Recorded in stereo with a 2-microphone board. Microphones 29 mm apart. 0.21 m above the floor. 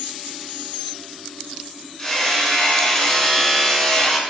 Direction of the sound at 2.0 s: 15° left (ahead or behind).